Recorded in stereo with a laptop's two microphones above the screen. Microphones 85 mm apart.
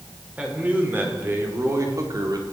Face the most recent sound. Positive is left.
turn(degrees=-50)  # may be behind; listen again after turning